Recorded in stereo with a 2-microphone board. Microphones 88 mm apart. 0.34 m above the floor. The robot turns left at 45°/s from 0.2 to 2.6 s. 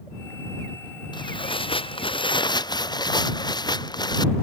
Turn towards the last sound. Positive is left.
turn(degrees=55)